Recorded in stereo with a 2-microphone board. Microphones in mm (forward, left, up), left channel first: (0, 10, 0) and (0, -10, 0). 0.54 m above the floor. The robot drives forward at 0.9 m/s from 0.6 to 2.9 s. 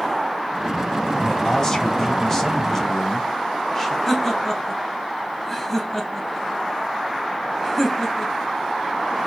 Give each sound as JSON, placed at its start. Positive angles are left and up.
{"t": 1.2, "sound": "a man speaking", "side_deg": 30, "distance_m": 3.0}
{"t": 4.1, "sound": "laughter", "side_deg": 15, "distance_m": 4.0}